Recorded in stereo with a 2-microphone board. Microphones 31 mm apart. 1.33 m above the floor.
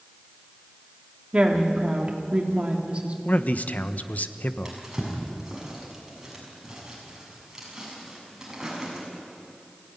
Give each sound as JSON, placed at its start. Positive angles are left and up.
{"t": 1.3, "sound": "a woman speaking", "side_deg": -40, "distance_m": 3.0}
{"t": 3.2, "sound": "a man speaking", "side_deg": 60, "distance_m": 1.2}
{"t": 4.7, "sound": "a drawer", "side_deg": -15, "distance_m": 7.0}